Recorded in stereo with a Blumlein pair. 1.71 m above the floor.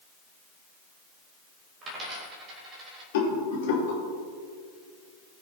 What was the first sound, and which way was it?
A dropped coin, 25° right.